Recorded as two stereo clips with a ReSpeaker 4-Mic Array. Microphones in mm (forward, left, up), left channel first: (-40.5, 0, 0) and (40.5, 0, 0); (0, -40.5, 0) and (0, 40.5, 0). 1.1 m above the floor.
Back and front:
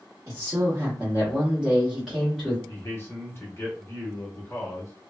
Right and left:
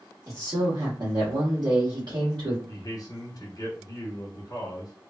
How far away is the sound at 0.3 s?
About 1.4 m.